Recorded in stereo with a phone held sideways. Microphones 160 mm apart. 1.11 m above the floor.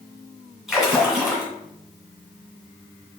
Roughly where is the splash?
Centre.